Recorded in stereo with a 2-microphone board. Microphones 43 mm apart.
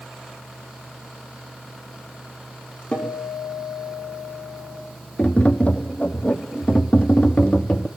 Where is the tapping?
30° left (ahead or behind), 1.3 m.